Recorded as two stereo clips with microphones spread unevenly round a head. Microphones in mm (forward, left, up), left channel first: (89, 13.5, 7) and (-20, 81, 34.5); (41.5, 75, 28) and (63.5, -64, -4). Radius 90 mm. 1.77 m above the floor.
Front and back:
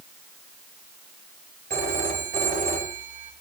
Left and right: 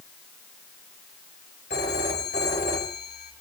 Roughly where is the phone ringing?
Behind left.